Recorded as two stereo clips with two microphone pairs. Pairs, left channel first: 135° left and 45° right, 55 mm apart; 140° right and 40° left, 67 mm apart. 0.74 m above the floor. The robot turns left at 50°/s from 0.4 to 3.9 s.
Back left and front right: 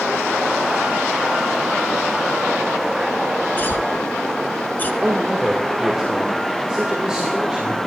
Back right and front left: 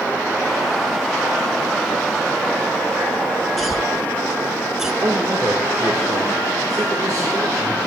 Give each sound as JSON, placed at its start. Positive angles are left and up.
{"t": 3.6, "sound": "a cough", "azimuth_deg": 130, "distance_m": 0.8}
{"t": 5.0, "sound": "a man speaking", "azimuth_deg": 30, "distance_m": 1.9}